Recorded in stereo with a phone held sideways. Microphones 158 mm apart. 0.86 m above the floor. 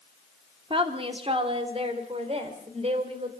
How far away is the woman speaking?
About 2.5 m.